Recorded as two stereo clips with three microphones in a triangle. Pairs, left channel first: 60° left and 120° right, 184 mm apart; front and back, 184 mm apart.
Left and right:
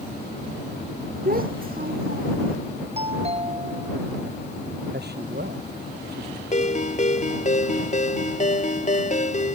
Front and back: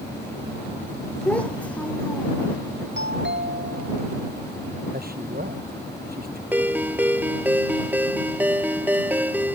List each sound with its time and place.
1.2 s a child speaking: 85° right
3.0 s a doorbell: 175° right
4.9 s a man speaking: 145° right
6.5 s a ringtone: 100° left